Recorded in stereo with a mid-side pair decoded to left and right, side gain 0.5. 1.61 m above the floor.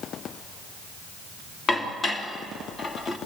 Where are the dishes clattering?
35° left, 2.5 m.